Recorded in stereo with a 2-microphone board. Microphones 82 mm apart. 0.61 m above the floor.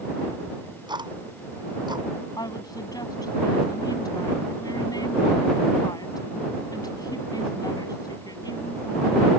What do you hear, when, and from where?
0.5 s ticking: 65° right (ahead or behind)
2.4 s a woman speaking: 50° left (ahead or behind)